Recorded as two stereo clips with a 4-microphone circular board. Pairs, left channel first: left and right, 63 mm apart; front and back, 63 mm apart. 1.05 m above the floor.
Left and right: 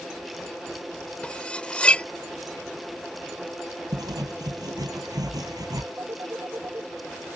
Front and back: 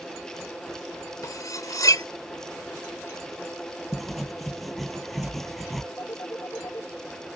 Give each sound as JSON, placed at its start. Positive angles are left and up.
{"t": 1.2, "sound": "cutlery clinking", "azimuth_deg": 20}
{"t": 3.9, "sound": "writing", "azimuth_deg": -90}
{"t": 6.0, "sound": "a phone ringing", "azimuth_deg": -45}